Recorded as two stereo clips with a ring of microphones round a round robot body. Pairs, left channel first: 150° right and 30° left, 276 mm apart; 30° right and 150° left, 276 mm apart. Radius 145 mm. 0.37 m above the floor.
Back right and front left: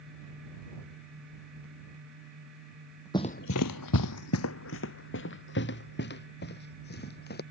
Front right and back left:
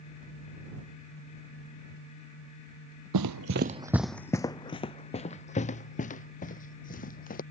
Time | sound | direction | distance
3.1 | running footsteps | 135° left | ?